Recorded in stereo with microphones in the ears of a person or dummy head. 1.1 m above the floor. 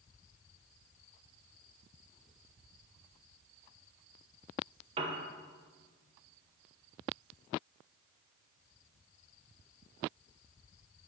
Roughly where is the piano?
Right.